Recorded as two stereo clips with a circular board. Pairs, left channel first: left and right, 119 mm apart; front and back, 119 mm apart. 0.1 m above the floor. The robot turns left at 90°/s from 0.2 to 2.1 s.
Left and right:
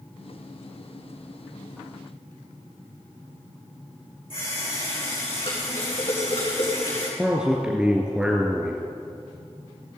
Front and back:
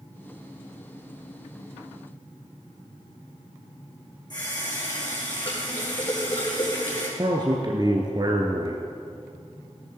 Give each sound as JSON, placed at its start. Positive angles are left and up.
{"t": 4.3, "sound": "a running tap", "azimuth_deg": 50, "distance_m": 4.5}
{"t": 7.2, "sound": "a man speaking", "azimuth_deg": -170, "distance_m": 1.3}